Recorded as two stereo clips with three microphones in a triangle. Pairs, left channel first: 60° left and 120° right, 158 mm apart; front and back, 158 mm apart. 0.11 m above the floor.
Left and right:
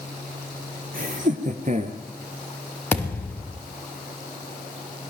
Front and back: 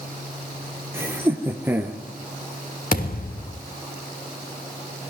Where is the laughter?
110° right, 3.5 m; by 2.0 s 105° right, 2 m.